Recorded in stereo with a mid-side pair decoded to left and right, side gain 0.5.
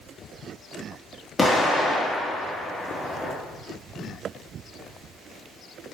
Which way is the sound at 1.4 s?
25° left.